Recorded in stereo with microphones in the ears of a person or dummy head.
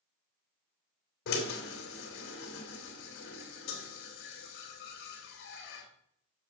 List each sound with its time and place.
1.3 s a drill: 65° left (ahead or behind), 2.5 m